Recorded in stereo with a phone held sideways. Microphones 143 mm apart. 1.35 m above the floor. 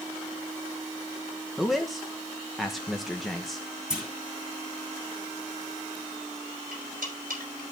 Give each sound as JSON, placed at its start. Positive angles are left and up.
{"t": 1.6, "sound": "a man speaking", "side_deg": 0, "distance_m": 1.1}
{"t": 3.9, "sound": "a clunk", "side_deg": -5, "distance_m": 2.5}
{"t": 6.7, "sound": "cutlery clinking", "side_deg": -80, "distance_m": 4.0}